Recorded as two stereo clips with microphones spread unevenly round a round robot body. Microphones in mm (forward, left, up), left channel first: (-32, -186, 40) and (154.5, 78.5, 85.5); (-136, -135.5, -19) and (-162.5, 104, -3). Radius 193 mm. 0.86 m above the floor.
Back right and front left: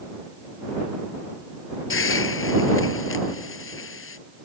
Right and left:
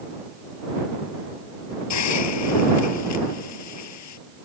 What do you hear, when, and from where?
1.9 s a hiss: 75° right